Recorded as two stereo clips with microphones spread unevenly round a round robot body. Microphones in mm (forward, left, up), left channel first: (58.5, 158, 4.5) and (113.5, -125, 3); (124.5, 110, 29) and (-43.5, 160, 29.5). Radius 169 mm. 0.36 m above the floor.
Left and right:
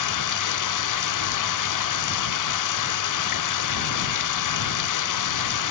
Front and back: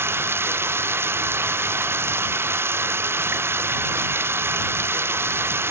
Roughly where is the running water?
Left.